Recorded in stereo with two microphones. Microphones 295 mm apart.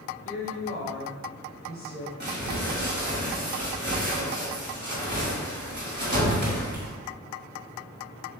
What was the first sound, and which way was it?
A woman speaking, 45° left (ahead or behind).